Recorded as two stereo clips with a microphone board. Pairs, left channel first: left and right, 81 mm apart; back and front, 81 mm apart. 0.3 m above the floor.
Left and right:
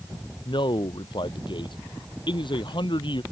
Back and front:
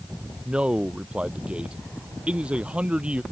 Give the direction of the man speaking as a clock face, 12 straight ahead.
9 o'clock.